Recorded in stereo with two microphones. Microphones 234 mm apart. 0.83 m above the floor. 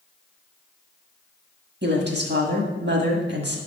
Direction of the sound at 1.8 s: 50° right (ahead or behind).